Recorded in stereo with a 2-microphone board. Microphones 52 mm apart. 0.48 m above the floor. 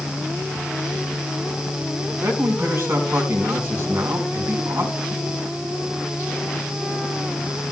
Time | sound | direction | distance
2.2 | a man speaking | 55° right (ahead or behind) | 4.5 m